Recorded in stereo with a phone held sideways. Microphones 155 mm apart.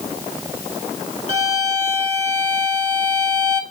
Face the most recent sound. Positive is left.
turn(degrees=-45)  # may be behind; listen again after turning